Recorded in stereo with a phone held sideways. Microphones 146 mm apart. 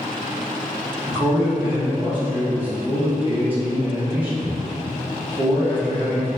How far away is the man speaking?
About 1.5 m.